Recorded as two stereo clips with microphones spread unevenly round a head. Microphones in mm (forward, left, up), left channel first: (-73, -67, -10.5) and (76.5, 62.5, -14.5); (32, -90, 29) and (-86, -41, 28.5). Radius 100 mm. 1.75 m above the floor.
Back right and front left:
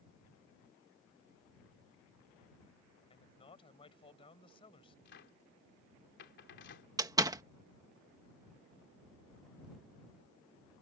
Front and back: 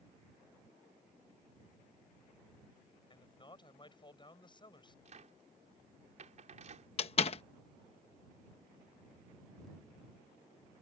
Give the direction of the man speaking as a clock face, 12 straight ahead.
2 o'clock.